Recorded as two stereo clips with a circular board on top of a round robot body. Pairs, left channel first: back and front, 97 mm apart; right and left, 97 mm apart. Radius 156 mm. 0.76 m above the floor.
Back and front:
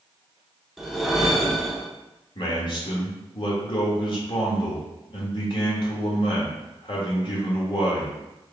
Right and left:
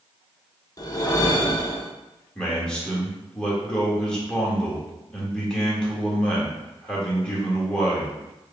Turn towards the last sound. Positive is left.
turn(degrees=-170)